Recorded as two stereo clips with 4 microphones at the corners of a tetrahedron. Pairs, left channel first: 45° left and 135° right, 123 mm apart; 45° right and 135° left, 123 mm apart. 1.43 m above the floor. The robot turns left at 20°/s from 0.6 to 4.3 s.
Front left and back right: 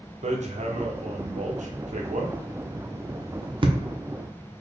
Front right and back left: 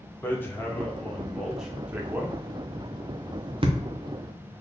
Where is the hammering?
120° right, 0.6 m; by 3.8 s 175° left, 0.6 m.